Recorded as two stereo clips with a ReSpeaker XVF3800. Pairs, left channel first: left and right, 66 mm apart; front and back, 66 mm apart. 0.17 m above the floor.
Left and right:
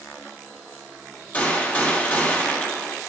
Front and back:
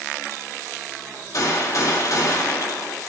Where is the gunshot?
25° left, 3 m.